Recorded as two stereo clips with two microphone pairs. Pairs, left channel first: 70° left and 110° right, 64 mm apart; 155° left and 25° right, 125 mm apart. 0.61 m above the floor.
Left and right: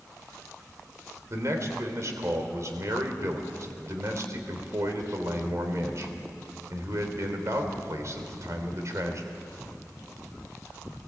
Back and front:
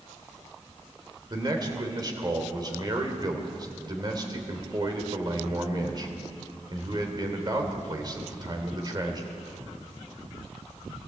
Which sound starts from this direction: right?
A man speaking, at 1.3 s.